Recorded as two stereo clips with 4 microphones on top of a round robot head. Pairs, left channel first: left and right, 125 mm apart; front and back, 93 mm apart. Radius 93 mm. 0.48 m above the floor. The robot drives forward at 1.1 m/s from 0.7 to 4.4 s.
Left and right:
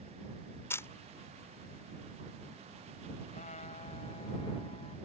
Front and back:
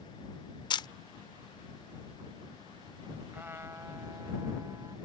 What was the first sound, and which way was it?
A camera shutter, 20° left.